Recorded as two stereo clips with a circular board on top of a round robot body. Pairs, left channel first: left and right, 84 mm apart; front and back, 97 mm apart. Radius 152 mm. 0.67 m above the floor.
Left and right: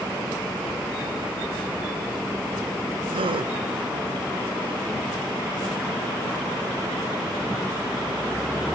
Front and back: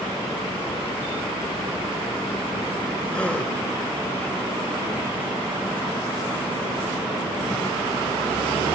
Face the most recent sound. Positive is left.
turn(degrees=-80)